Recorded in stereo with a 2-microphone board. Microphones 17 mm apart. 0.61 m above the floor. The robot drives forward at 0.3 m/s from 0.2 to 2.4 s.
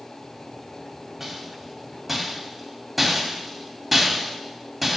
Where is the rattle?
5° right (ahead or behind), 1.7 m.